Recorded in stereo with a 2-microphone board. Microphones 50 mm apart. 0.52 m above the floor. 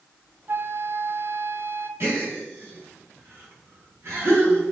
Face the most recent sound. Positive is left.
turn(degrees=-55)  # may be behind; listen again after turning